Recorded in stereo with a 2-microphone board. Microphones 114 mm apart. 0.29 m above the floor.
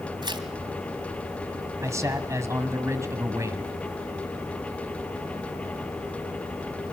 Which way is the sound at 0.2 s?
45° right (ahead or behind).